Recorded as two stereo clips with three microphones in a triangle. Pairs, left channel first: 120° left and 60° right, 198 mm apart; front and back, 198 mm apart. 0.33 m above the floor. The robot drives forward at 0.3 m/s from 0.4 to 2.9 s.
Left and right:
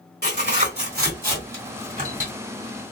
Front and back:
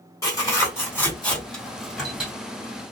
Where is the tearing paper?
70° right, 1.7 m; by 2.3 s 95° right, 1.6 m.